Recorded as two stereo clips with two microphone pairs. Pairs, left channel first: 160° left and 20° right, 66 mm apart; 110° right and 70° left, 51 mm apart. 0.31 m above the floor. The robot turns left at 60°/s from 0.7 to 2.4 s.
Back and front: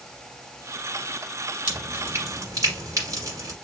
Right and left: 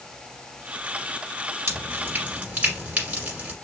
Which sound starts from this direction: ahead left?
Dripping, at 1.7 s.